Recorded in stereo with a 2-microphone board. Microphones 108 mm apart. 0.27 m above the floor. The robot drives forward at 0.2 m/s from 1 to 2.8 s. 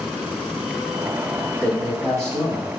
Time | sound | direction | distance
1.6 | a man speaking | 10° left (ahead or behind) | 1.6 m